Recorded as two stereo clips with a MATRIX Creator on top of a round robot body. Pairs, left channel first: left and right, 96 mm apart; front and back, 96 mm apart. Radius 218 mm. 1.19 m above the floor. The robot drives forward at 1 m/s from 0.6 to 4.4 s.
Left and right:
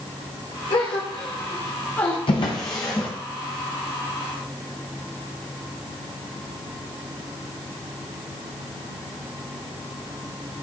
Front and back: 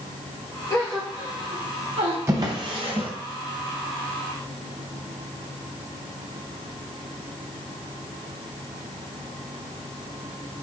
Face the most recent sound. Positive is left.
turn(degrees=170)